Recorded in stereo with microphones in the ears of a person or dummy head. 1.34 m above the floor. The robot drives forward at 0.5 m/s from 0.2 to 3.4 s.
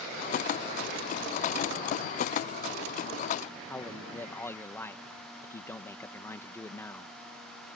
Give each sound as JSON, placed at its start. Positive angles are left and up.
{"t": 3.7, "sound": "a man speaking", "side_deg": 10}